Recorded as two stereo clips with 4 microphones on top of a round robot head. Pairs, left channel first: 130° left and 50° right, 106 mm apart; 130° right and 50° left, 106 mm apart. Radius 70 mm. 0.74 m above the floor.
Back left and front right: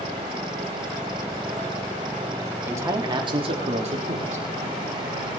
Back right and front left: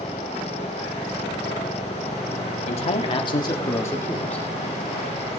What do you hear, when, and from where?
2.7 s a man speaking: 115° right, 1.6 m; by 4.4 s 55° right, 2 m